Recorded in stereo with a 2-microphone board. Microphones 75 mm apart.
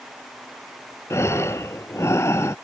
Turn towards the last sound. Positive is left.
turn(degrees=40)  # may be behind; listen again after turning